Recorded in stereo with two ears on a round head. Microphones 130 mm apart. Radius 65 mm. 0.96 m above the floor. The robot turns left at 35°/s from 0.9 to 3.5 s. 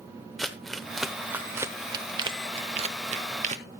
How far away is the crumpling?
About 0.8 m.